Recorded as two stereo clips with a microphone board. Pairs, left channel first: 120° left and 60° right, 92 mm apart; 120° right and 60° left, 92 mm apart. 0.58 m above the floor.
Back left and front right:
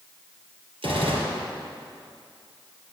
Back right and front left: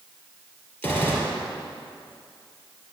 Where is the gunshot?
55° right, 2 m.